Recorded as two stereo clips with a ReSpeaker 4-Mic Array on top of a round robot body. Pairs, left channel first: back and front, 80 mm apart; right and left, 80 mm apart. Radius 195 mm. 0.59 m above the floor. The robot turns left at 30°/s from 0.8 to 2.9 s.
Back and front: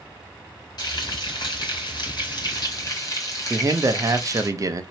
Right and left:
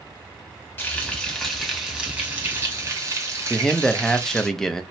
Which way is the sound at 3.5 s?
10° right.